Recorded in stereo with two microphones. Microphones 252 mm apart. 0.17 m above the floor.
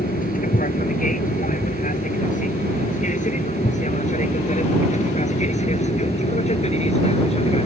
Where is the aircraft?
35° left (ahead or behind); by 7.7 s 25° left (ahead or behind).